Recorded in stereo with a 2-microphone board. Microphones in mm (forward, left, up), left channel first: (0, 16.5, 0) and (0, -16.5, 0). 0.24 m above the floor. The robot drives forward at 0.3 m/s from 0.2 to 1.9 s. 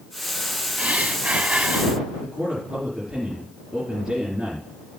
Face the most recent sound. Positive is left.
turn(degrees=-20)  # may be behind; listen again after turning